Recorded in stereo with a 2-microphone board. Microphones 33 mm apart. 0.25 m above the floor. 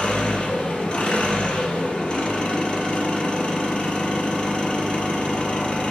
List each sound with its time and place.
0.0 s an engine running: 30° left (ahead or behind), 2 m